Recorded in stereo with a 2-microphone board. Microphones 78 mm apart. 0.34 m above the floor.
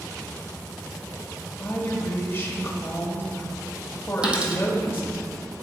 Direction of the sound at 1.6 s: 35° left (ahead or behind).